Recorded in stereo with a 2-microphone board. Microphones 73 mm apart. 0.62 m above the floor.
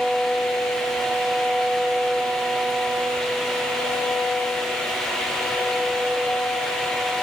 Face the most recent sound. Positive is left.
No sound to turn to.